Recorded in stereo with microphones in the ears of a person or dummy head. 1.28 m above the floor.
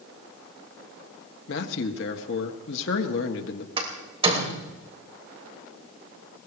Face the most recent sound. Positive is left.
turn(degrees=-30)  # may be behind; listen again after turning